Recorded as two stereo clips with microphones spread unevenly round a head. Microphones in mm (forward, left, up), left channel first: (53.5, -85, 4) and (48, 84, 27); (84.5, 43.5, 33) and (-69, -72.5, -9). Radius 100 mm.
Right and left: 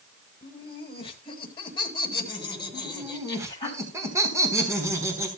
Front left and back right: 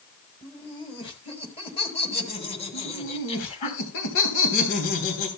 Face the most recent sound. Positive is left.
turn(degrees=20)